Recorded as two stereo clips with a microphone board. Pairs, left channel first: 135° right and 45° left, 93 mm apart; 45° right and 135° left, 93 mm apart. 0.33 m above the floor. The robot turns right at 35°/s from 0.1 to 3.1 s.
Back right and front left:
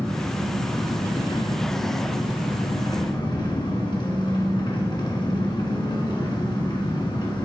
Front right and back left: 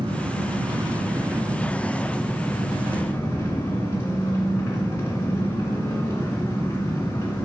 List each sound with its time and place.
0.0 s an engine running: 150° left, 1.8 m; by 7.5 s 105° right, 1.8 m